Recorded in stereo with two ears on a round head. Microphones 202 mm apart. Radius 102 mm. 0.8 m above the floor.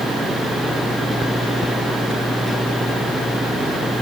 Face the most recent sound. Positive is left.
No sound to turn to.